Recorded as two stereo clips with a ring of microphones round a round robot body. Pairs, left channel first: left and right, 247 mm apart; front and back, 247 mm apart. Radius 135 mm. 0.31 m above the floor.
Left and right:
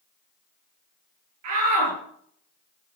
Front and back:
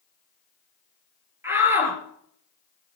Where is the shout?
100° right, 6 m.